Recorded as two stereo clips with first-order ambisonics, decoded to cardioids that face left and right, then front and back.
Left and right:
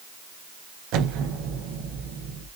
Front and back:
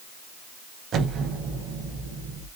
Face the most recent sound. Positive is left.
turn(degrees=-125)